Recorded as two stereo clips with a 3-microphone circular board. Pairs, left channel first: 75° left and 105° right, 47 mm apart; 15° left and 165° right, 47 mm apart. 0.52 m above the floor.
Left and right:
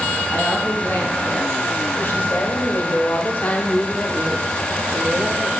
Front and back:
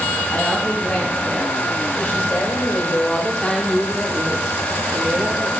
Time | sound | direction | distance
0.3 | a woman speaking | 50° left | 4 m